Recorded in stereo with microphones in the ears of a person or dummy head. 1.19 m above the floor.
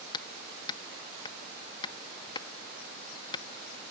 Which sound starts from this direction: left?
Hammering, at 0.1 s.